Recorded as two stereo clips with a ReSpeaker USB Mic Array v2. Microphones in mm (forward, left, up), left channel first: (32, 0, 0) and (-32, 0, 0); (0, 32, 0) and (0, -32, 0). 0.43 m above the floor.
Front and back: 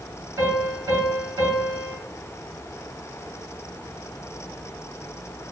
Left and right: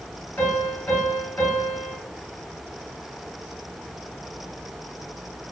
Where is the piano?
150° left, 1.6 m.